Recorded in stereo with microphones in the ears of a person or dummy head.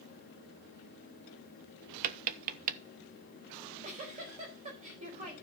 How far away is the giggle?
About 4 m.